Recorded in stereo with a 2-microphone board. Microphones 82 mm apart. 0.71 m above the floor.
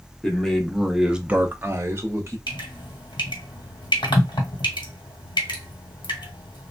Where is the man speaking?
10° left (ahead or behind), 0.9 m; by 2.4 s 30° right (ahead or behind), 0.8 m.